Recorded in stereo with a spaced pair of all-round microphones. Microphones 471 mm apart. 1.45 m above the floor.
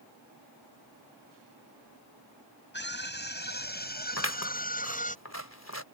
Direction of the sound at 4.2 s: 35° left (ahead or behind).